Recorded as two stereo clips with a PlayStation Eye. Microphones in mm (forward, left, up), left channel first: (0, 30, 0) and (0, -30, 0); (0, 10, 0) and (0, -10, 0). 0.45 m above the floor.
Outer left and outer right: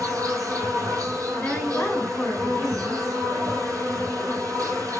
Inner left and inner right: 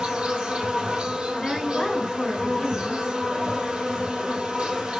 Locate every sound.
0.0 s an insect: 70° right (ahead or behind), 1.4 m
1.3 s a woman speaking: 15° left (ahead or behind), 2.0 m